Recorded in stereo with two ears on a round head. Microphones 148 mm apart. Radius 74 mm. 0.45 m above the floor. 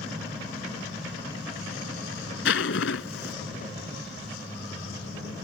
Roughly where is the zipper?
Left.